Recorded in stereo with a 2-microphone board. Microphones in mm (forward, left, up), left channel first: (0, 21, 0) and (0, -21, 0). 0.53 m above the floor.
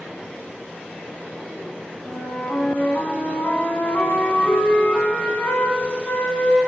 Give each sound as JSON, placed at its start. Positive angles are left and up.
{"t": 2.0, "sound": "a flute", "side_deg": 50, "distance_m": 0.7}